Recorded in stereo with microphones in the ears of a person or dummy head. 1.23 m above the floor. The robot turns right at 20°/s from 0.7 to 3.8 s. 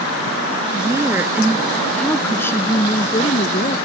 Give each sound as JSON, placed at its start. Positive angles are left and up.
{"t": 0.7, "sound": "a woman speaking", "azimuth_deg": -20}